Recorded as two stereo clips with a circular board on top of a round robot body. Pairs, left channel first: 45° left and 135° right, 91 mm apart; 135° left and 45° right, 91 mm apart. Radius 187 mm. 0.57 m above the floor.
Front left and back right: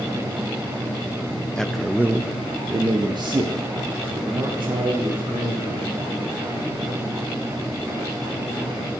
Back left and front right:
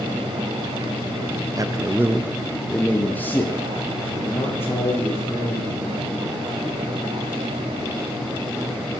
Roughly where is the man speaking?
Ahead right.